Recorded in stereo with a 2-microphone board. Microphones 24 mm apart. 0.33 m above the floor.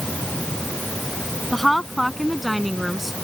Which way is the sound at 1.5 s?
5° left (ahead or behind).